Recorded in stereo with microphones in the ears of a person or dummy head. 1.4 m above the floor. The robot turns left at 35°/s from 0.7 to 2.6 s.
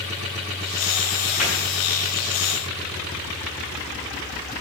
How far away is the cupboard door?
About 6.5 m.